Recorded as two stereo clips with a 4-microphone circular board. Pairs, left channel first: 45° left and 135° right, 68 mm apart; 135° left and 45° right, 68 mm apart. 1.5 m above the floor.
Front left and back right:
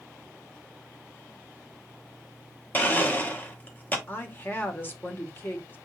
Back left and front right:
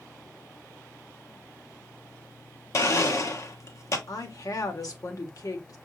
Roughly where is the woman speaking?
Left.